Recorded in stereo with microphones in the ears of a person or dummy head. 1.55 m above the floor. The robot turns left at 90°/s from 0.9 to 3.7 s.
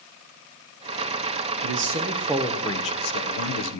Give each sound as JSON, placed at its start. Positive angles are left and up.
{"t": 1.6, "sound": "a man speaking", "azimuth_deg": -105, "distance_m": 1.0}